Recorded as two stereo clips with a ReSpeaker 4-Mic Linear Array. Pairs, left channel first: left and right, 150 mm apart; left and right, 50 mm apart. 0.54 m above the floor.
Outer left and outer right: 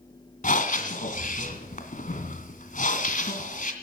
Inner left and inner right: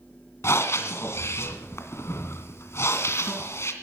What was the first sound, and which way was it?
Breathing, 60° left (ahead or behind).